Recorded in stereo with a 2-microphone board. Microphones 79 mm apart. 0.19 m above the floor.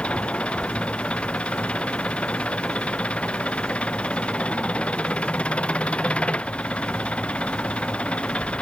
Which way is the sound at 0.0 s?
15° left (ahead or behind).